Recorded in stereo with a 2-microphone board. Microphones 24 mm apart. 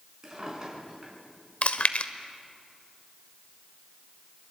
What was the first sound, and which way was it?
A drawer, 35° right (ahead or behind).